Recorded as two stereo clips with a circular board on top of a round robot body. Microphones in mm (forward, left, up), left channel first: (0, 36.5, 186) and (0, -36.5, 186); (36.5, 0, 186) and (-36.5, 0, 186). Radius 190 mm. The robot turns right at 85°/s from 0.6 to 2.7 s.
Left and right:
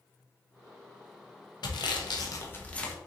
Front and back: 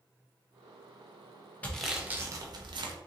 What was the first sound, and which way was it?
Sawing, 70° left.